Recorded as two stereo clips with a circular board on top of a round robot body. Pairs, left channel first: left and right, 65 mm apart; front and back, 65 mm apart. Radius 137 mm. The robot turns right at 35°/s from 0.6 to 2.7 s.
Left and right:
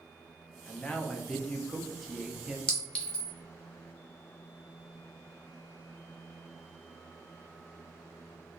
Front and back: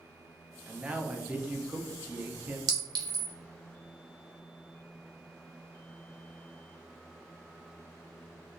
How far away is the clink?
About 0.7 m.